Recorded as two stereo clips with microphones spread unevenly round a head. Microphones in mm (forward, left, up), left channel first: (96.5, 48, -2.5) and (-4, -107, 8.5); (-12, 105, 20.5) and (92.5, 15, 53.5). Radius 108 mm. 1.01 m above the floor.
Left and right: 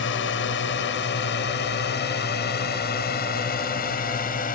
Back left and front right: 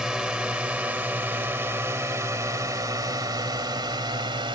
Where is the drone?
45° left; by 4.6 s 15° left.